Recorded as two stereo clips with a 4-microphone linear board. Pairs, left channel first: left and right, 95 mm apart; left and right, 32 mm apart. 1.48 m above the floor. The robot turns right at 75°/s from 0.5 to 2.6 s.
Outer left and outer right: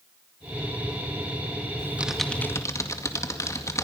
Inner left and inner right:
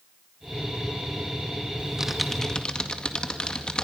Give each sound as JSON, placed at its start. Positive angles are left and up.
{"t": 1.8, "sound": "typing on a keyboard", "side_deg": -30, "distance_m": 2.0}